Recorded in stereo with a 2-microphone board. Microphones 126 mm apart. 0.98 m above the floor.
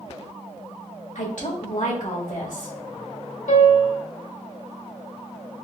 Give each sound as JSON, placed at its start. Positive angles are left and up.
{"t": 1.1, "sound": "a woman speaking", "side_deg": 80, "distance_m": 1.5}
{"t": 3.5, "sound": "a piano", "side_deg": 85, "distance_m": 1.1}